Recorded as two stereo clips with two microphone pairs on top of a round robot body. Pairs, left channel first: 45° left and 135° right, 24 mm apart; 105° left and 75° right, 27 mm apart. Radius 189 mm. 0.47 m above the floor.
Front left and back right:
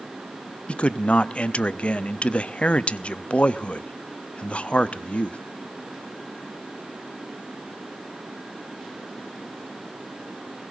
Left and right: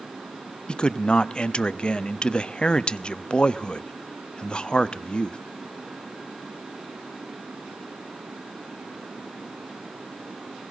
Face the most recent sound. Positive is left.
turn(degrees=65)